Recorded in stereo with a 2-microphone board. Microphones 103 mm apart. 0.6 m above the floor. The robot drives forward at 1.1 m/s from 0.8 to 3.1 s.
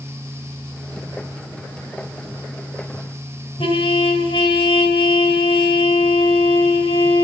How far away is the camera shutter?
I don't hear a camera shutter.